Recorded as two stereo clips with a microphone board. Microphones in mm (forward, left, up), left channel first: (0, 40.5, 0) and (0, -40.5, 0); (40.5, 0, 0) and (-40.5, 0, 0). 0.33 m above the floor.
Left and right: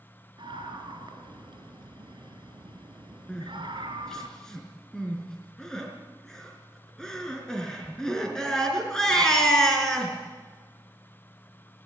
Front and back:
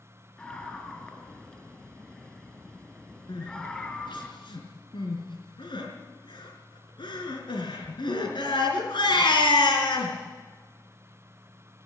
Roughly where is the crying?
Ahead.